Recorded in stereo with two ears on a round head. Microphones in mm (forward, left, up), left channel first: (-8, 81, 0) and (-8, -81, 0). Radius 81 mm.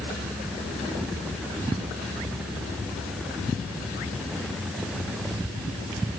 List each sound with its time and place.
Only background noise.